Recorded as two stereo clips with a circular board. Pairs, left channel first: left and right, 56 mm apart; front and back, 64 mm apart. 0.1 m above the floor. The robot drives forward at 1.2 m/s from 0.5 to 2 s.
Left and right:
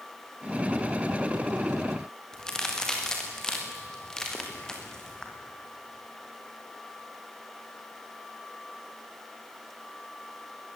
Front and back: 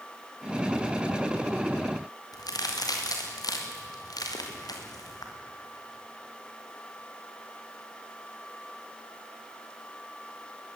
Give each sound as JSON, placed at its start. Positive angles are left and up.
{"t": 2.3, "sound": "a crack", "azimuth_deg": 10, "distance_m": 5.0}